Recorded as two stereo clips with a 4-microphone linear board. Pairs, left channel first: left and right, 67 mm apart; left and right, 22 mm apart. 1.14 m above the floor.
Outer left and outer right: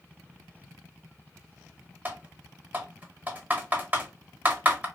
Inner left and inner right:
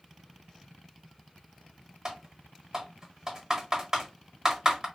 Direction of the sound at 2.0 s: 25° right (ahead or behind).